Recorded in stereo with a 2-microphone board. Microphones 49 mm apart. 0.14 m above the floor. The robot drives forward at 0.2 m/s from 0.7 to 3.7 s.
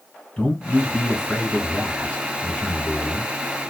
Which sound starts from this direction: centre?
A man speaking, at 0.4 s.